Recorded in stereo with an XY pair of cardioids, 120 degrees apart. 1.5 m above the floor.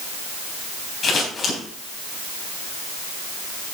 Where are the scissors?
40° left, 3.5 m.